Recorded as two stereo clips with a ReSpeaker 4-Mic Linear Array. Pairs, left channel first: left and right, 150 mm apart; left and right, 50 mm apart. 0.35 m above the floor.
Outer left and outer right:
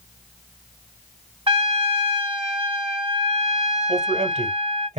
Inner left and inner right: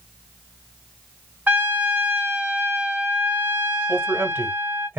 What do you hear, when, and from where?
1.5 s a trumpet: 35° right (ahead or behind), 1.6 m
3.9 s a man speaking: 45° right (ahead or behind), 1.5 m